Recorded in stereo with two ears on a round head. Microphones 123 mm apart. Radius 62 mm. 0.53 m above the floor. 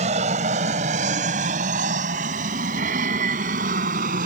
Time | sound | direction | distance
0.0 | an aircraft | 50° right (ahead or behind) | ?